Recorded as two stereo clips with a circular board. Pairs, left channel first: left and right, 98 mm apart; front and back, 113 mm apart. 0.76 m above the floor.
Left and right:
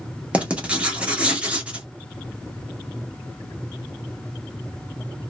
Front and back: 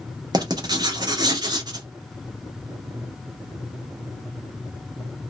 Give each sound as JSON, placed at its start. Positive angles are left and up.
{"t": 0.3, "sound": "writing", "azimuth_deg": -160, "distance_m": 0.8}